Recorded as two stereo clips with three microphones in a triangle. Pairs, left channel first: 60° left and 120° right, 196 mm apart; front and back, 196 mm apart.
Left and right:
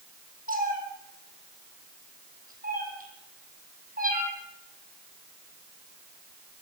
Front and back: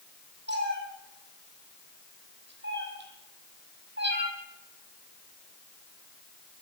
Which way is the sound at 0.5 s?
160° right.